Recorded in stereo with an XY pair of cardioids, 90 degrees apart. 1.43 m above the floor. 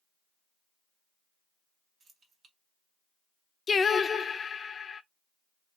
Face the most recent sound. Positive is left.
turn(degrees=45)